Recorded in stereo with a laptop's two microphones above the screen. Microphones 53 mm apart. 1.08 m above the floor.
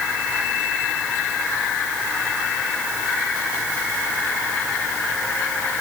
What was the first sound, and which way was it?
Only background noise.